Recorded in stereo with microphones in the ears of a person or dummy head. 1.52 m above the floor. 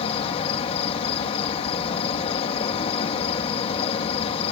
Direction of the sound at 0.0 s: 30° left (ahead or behind).